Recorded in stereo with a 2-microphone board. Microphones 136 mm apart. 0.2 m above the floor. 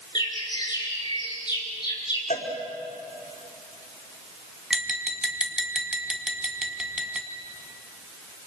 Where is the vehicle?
I don't hear a vehicle.